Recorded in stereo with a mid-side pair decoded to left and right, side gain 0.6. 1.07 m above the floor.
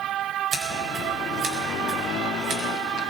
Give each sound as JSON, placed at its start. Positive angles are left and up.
{"t": 0.5, "sound": "scissors", "azimuth_deg": -45, "distance_m": 4.0}